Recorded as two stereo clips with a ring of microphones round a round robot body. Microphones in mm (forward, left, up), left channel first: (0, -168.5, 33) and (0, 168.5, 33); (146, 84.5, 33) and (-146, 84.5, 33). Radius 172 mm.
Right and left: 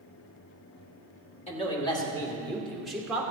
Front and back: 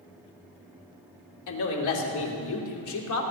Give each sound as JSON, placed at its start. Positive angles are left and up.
{"t": 1.5, "sound": "a man speaking", "azimuth_deg": -20, "distance_m": 2.5}